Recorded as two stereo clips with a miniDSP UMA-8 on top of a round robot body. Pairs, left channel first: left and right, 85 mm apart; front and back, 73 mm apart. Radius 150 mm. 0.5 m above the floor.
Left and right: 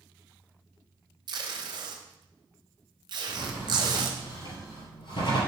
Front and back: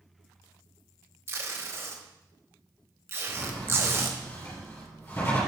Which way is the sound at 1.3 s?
125° right.